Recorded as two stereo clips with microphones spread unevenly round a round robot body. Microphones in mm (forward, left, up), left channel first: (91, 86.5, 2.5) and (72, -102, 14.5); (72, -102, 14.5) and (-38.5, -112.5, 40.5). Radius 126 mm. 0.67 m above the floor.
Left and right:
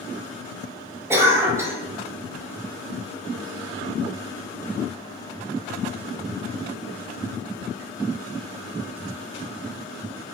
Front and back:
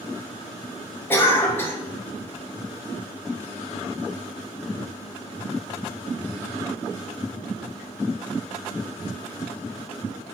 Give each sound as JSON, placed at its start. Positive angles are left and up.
{"t": 1.1, "sound": "a cough", "azimuth_deg": -20, "distance_m": 0.7}